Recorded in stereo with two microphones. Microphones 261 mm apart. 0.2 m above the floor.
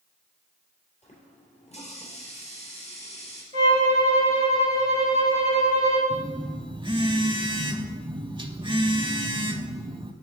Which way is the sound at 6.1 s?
20° right (ahead or behind).